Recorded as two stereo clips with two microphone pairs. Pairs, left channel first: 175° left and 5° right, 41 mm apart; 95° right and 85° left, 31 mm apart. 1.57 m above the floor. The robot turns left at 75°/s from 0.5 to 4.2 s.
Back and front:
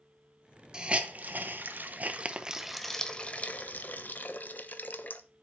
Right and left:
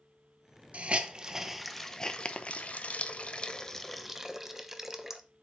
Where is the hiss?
60° left, 0.8 m; by 5.2 s 160° left, 0.8 m.